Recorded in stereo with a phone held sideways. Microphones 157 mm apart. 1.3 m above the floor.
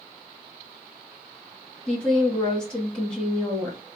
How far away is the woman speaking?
About 2 m.